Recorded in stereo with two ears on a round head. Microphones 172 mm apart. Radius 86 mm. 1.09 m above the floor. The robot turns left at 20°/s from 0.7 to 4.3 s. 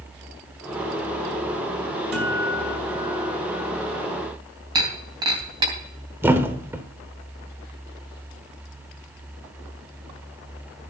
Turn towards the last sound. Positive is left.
turn(degrees=-10)  # may be behind; listen again after turning